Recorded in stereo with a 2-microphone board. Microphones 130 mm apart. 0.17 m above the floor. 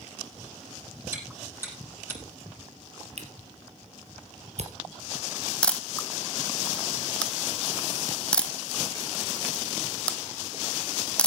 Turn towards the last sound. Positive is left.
turn(degrees=10)  # may be behind; listen again after turning